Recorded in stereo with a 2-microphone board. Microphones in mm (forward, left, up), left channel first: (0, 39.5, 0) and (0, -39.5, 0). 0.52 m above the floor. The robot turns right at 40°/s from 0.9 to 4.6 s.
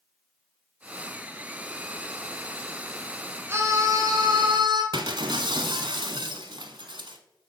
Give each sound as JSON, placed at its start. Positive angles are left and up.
{"t": 3.5, "sound": "a scream", "azimuth_deg": -150, "distance_m": 2.5}
{"t": 4.9, "sound": "breaking glass", "side_deg": -70, "distance_m": 1.1}